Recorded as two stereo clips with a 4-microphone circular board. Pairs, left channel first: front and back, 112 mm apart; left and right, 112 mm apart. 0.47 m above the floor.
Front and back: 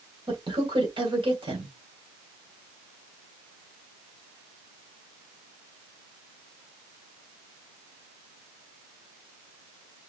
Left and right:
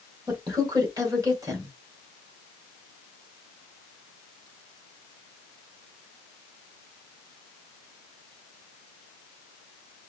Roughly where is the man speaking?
Behind right.